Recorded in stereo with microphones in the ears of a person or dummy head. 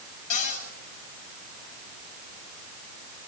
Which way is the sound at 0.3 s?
40° left (ahead or behind).